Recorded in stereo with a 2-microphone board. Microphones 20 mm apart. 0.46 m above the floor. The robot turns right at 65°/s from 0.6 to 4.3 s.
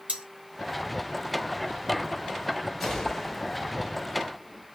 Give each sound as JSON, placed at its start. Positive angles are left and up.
{"t": 0.1, "sound": "cutlery clinking", "side_deg": -65, "distance_m": 3.0}
{"t": 2.8, "sound": "a gunshot", "azimuth_deg": 10, "distance_m": 2.0}